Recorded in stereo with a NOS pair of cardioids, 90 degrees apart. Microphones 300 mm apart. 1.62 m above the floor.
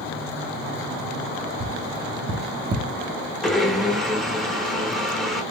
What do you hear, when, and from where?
1.6 s tapping: 30° right, 0.6 m
3.4 s a blender: straight ahead, 0.6 m